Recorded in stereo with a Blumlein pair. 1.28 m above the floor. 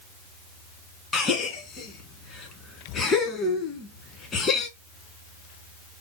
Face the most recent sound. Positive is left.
turn(degrees=25)